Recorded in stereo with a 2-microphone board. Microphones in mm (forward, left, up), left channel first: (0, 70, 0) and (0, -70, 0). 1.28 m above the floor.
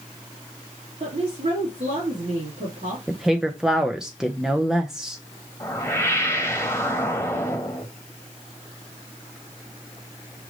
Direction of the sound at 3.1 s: 5° right (ahead or behind).